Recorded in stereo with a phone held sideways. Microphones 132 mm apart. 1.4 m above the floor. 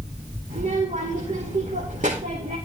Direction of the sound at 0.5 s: 75° right (ahead or behind).